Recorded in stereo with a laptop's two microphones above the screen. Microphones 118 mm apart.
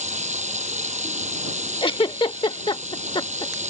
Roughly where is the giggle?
Left.